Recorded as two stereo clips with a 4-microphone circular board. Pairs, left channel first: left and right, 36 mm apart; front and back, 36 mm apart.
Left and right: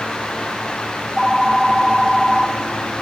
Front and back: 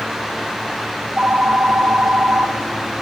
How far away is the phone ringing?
About 1.2 m.